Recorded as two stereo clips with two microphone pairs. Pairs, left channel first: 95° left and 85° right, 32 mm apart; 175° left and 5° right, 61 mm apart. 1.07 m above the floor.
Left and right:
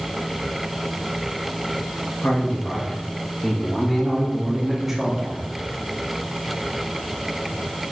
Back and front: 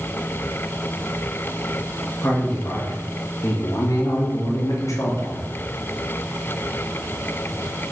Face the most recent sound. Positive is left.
turn(degrees=-155)